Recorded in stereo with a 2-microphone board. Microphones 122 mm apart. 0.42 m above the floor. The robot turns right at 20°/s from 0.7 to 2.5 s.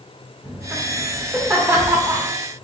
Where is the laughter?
10° right (ahead or behind), 0.8 m; by 2.3 s 25° right (ahead or behind), 0.8 m.